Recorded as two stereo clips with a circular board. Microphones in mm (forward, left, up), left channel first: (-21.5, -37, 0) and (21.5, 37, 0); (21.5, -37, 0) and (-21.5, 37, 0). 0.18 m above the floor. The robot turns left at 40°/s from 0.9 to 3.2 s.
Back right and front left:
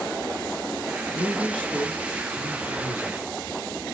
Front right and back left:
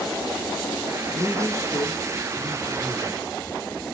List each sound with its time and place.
1.1 s a man speaking: 25° right, 1.6 m; by 3.2 s 110° right, 1.6 m